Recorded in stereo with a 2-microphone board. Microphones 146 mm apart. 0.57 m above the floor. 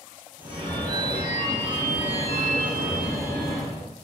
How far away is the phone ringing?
About 0.9 m.